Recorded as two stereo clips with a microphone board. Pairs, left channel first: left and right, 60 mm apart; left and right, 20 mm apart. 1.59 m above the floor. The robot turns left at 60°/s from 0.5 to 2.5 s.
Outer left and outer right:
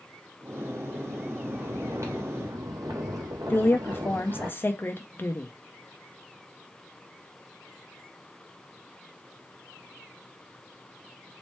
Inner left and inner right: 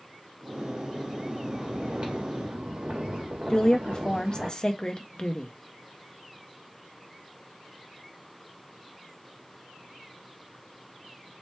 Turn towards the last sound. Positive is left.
turn(degrees=35)  # may be behind; listen again after turning